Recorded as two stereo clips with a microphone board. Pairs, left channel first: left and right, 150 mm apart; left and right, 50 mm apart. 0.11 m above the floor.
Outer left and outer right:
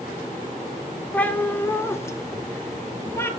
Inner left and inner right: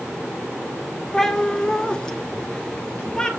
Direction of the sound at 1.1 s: 10° left (ahead or behind).